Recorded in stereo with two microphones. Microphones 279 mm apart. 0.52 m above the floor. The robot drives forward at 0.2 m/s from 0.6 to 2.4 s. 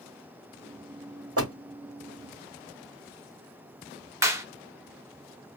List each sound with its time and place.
1.4 s a door slam: 55° right (ahead or behind), 1.0 m; by 1.6 s 60° right (ahead or behind), 0.9 m
4.2 s a clap: 10° right (ahead or behind), 0.9 m